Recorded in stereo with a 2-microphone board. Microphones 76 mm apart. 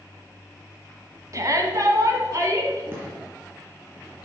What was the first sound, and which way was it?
A shout, 45° right (ahead or behind).